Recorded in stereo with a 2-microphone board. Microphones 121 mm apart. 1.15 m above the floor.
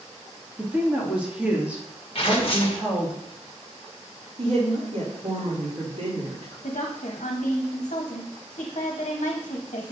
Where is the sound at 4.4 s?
65° right (ahead or behind), 3 m.